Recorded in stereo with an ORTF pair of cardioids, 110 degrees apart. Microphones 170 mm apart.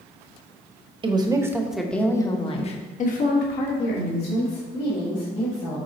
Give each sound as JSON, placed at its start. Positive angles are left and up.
{"t": 1.0, "sound": "a woman speaking", "azimuth_deg": -30, "distance_m": 1.3}